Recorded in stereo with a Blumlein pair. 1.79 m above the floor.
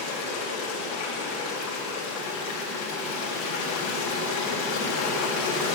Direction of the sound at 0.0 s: 40° left.